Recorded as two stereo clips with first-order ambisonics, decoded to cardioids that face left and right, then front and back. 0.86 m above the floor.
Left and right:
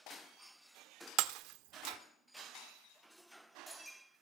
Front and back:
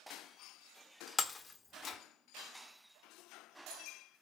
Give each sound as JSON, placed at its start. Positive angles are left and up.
{"t": 1.2, "sound": "breaking glass", "azimuth_deg": -70, "distance_m": 1.0}